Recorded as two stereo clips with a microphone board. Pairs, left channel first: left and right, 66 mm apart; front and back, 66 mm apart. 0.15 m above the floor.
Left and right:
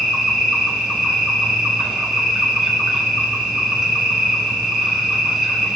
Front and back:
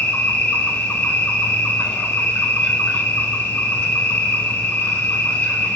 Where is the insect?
15° right, 0.9 m.